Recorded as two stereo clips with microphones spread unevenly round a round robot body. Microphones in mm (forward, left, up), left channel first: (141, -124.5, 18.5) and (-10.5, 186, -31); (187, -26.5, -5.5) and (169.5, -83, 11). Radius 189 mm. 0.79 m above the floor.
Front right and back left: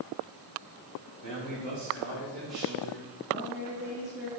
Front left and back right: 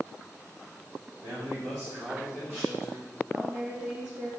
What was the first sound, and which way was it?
A man speaking, 135° right.